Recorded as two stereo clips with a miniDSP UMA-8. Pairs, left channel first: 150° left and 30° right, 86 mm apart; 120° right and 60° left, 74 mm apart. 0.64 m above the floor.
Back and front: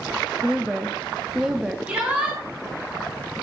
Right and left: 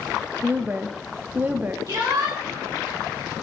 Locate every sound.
0.4 s a woman speaking: 40° left, 0.6 m
1.9 s a shout: 40° left, 1.8 m